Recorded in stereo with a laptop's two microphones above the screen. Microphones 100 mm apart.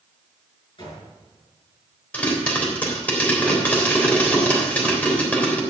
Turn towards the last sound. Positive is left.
turn(degrees=15)  # may be behind; listen again after turning